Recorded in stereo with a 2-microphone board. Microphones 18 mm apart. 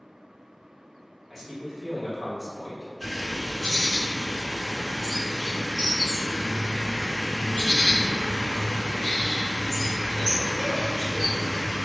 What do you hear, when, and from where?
1.3 s a man speaking: 5° right (ahead or behind), 1.0 m
3.0 s a bird: 20° left (ahead or behind), 1.3 m